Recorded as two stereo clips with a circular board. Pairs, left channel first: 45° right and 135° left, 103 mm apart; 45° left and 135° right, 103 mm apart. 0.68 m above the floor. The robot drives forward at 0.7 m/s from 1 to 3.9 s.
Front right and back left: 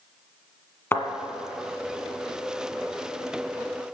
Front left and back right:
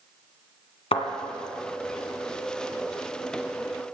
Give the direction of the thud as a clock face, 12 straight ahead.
11 o'clock.